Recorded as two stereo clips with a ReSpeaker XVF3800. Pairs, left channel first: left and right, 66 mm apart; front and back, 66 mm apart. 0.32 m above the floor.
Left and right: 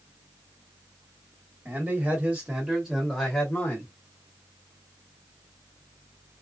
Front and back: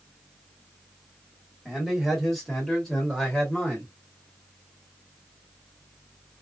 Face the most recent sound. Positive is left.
turn(degrees=70)